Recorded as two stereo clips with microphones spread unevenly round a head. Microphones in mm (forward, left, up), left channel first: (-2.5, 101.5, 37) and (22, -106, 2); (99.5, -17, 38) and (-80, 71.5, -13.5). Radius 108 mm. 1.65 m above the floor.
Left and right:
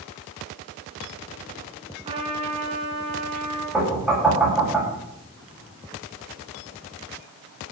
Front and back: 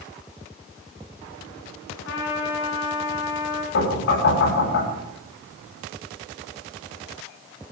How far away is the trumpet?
About 5 m.